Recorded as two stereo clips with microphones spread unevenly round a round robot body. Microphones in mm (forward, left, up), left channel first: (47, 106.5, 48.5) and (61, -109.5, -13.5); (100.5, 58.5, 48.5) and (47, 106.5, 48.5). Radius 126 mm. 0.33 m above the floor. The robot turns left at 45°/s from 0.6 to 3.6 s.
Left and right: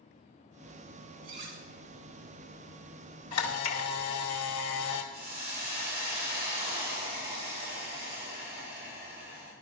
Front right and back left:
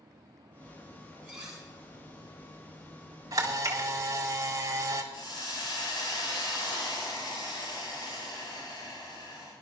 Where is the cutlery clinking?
150° right, 3 m; by 1.6 s 165° right, 3 m.